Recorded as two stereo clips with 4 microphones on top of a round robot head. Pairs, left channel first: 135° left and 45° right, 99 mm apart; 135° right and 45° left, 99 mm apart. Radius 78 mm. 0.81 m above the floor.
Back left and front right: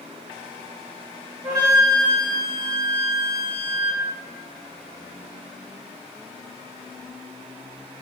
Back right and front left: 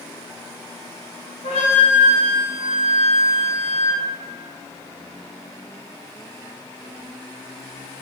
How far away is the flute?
About 0.6 m.